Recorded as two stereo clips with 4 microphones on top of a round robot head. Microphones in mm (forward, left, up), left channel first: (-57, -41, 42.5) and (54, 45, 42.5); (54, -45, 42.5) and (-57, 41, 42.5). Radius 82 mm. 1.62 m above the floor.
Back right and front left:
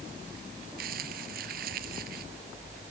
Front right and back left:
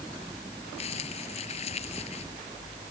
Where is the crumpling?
10° left.